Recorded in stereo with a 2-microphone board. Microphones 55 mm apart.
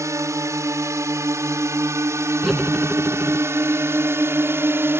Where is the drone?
65° right (ahead or behind); by 5.0 s 45° right (ahead or behind).